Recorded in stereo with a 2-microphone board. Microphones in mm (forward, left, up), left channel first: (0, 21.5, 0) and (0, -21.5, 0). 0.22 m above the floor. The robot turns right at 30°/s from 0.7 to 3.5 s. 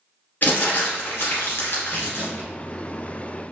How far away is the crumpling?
About 1.3 m.